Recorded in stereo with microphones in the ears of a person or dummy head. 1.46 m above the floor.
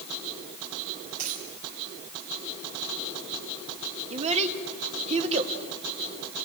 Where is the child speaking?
40° right (ahead or behind), 1.8 m.